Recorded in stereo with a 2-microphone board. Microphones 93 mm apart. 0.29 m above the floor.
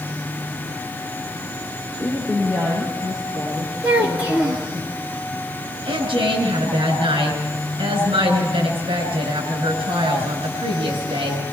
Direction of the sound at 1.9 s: Centre (ahead or behind).